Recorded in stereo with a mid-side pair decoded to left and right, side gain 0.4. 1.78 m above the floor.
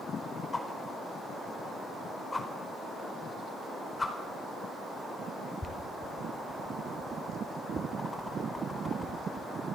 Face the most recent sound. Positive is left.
turn(degrees=20)